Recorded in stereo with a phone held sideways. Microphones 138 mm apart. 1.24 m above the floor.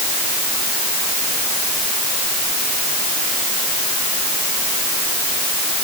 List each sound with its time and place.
Only background noise.